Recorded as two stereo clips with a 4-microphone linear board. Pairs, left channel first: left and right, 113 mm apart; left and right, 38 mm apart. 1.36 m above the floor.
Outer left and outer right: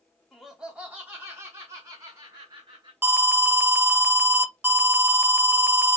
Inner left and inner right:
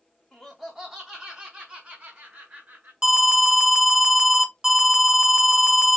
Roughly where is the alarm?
Centre.